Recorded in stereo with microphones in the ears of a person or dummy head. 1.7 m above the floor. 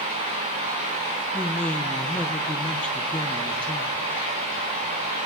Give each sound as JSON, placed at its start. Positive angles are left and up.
{"t": 1.3, "sound": "a man speaking", "side_deg": 5, "distance_m": 1.0}